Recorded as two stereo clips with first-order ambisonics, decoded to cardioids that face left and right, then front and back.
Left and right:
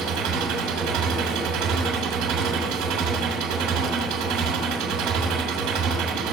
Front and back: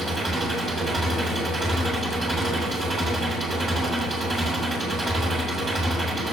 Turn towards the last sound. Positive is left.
turn(degrees=-115)